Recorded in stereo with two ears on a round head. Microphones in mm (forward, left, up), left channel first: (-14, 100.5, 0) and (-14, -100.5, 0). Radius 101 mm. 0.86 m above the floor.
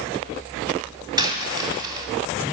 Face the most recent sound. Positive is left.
turn(degrees=-20)  # may be behind; listen again after turning